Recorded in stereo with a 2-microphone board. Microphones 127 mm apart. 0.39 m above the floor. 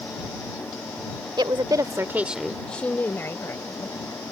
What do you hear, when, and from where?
1.4 s a woman speaking: 35° right (ahead or behind); by 4.3 s 25° left (ahead or behind)